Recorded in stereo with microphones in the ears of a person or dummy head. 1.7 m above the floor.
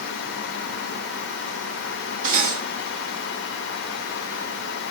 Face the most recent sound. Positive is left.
turn(degrees=-45)  # may be behind; listen again after turning